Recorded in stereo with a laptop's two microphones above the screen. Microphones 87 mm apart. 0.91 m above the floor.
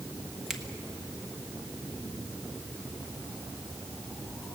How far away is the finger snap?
About 1.2 m.